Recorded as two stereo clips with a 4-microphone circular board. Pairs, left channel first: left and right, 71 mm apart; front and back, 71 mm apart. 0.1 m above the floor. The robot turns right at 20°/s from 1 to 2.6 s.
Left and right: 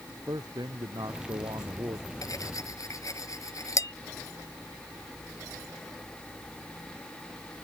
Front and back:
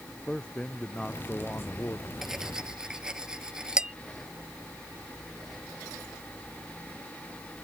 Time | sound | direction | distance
0.3 | a man speaking | 75° right | ?
2.2 | cutlery clinking | 95° left | ?